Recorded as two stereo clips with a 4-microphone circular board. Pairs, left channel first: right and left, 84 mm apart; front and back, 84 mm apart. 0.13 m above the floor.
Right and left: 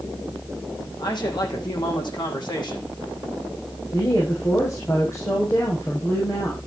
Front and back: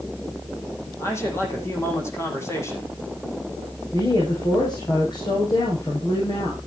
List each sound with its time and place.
1.0 s a man speaking: 60° right, 6 m
3.9 s a woman speaking: 35° right, 6.5 m